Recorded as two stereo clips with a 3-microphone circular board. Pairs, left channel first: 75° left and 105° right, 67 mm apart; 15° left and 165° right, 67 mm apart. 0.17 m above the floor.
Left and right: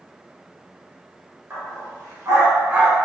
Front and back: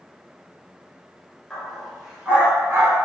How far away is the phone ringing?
I don't hear a phone ringing.